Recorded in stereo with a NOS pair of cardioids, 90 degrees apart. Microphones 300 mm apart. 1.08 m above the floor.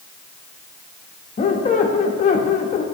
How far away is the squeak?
About 0.8 m.